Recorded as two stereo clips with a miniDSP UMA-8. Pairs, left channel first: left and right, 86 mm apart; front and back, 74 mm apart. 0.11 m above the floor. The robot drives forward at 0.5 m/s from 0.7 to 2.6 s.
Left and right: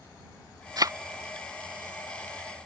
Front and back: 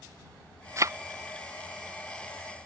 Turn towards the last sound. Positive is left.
turn(degrees=-160)